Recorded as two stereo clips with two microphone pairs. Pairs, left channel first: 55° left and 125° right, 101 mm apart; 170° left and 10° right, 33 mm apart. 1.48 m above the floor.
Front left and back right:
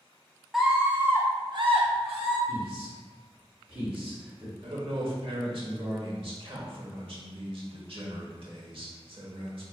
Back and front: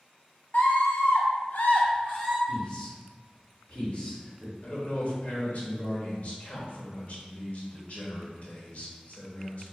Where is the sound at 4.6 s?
150° right, 1.1 m.